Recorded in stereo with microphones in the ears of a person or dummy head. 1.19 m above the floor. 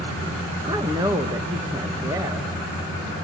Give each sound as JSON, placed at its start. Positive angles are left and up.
{"t": 0.6, "sound": "a woman speaking", "side_deg": -20, "distance_m": 1.5}